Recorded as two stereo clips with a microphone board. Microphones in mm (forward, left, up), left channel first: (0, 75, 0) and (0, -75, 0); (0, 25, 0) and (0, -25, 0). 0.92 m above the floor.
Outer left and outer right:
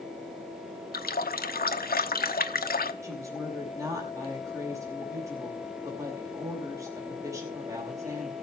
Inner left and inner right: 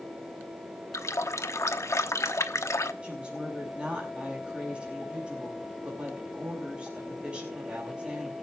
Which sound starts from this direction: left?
A running tap, at 0.9 s.